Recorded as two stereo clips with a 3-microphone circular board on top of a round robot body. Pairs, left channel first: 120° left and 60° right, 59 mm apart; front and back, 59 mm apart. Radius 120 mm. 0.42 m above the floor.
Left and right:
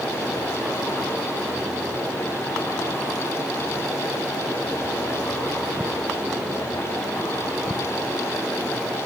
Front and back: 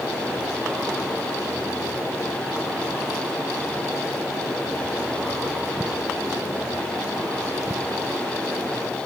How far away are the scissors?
I don't hear scissors.